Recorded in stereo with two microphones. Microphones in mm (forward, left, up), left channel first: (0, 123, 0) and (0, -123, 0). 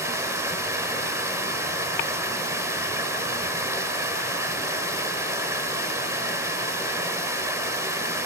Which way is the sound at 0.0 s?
10° right (ahead or behind).